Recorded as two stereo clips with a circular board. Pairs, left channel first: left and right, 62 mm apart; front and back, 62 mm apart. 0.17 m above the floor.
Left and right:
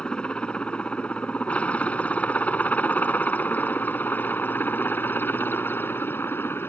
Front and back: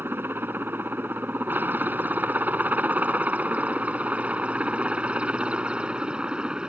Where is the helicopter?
155° left; by 6.7 s 110° left.